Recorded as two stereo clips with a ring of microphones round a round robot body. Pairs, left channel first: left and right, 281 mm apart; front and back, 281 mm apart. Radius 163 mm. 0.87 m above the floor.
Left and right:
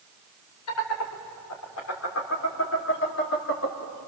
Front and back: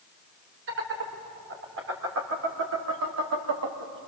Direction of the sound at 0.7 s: 130° left.